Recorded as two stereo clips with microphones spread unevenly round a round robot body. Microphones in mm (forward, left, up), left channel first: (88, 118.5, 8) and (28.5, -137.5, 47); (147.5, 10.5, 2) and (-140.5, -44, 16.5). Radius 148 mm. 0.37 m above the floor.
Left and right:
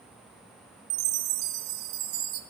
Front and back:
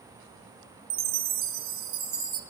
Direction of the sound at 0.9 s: 120° right.